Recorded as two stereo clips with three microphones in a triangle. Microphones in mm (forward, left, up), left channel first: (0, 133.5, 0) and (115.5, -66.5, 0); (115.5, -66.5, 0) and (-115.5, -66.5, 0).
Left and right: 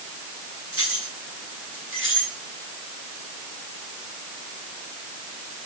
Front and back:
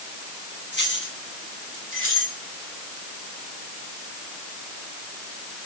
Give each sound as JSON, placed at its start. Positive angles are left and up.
{"t": 0.7, "sound": "keys jangling", "azimuth_deg": -40, "distance_m": 6.5}